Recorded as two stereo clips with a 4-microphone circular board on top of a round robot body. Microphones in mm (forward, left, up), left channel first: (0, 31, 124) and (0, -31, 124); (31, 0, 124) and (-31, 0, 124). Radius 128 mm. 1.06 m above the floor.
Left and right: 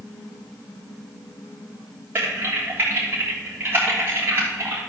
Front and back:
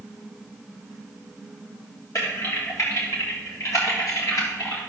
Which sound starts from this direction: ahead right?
Typing on a keyboard, at 2.1 s.